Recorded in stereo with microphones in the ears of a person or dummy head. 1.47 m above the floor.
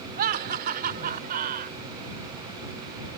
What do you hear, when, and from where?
0.2 s laughter: 50° right (ahead or behind)